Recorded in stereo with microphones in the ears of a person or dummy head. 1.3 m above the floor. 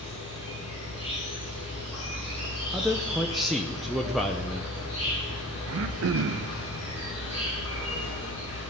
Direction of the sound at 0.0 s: 30° left (ahead or behind).